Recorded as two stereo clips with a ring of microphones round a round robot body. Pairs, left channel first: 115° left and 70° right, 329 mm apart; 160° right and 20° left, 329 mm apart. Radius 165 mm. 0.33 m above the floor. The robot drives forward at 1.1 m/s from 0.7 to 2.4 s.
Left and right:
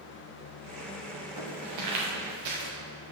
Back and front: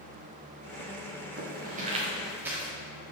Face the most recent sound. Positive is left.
turn(degrees=-65)